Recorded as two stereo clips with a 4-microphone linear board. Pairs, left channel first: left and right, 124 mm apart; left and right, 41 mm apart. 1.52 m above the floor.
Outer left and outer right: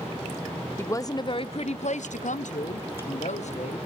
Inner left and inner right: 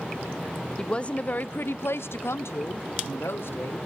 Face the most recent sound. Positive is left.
turn(degrees=65)  # may be behind; listen again after turning